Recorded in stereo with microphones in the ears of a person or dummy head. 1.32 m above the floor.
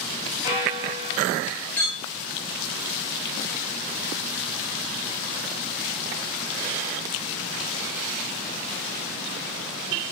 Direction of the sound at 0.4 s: 50° left (ahead or behind).